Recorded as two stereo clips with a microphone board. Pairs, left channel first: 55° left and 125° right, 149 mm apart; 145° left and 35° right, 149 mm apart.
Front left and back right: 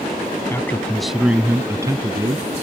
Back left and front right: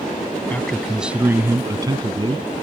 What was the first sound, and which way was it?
A man speaking, 85° left.